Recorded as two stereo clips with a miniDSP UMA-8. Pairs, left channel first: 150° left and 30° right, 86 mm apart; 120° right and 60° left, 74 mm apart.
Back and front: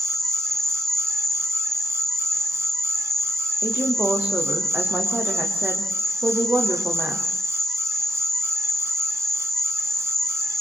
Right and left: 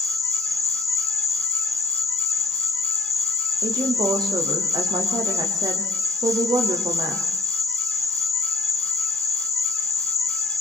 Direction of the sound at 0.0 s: 65° left.